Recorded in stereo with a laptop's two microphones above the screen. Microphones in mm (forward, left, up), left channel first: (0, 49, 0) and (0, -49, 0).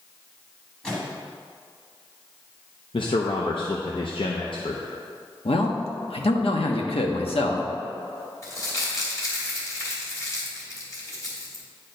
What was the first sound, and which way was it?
A microwave, 10° left (ahead or behind).